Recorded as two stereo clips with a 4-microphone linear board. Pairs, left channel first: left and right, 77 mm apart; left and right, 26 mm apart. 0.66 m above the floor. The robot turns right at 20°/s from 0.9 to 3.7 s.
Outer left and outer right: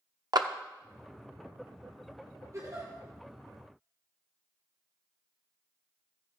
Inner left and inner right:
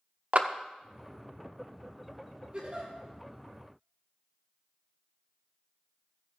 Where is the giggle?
45° right (ahead or behind), 7 m; by 2.9 s 55° right (ahead or behind), 7 m.